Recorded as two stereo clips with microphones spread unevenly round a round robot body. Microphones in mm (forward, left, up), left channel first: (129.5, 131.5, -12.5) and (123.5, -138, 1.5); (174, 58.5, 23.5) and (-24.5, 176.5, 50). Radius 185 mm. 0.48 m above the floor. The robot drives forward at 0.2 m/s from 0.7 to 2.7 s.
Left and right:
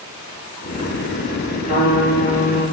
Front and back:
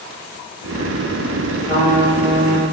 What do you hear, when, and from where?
1.6 s a trumpet: 165° left, 1.8 m